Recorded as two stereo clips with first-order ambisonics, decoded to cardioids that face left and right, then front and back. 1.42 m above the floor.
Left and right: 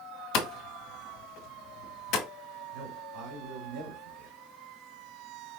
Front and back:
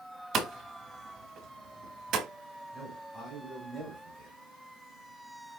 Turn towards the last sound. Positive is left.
turn(degrees=-90)